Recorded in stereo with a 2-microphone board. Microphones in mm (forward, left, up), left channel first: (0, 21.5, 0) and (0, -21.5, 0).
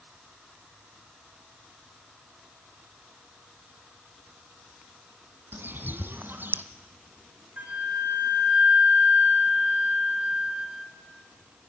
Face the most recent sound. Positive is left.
turn(degrees=-40)  # may be behind; listen again after turning